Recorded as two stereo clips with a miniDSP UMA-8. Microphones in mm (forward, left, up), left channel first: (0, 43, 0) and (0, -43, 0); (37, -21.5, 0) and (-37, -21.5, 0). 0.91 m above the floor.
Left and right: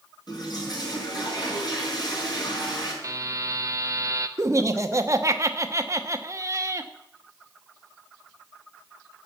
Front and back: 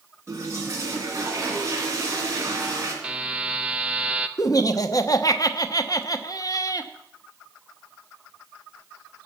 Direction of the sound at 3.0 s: 115° right.